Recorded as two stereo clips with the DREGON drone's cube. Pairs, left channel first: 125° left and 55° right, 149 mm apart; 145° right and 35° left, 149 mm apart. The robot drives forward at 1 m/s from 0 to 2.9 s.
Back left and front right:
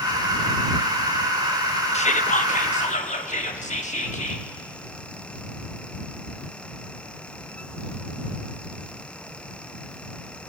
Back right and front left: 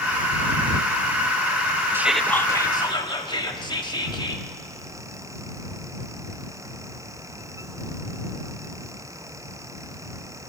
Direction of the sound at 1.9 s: 105° left.